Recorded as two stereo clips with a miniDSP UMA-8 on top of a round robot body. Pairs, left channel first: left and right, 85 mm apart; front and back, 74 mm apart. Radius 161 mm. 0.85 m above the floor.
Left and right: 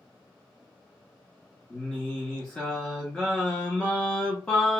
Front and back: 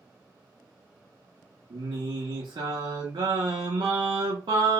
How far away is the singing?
About 0.6 m.